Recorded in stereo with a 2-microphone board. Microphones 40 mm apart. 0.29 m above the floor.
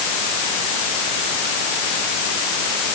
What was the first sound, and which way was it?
Only background noise.